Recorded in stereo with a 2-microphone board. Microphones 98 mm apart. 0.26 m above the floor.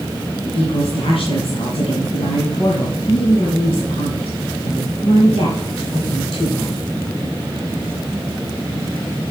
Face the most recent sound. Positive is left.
turn(degrees=65)  # may be behind; listen again after turning